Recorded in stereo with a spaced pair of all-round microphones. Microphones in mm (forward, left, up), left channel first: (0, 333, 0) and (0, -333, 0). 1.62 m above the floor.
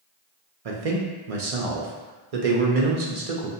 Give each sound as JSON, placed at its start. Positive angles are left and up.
{"t": 0.7, "sound": "a man speaking", "side_deg": -60, "distance_m": 0.7}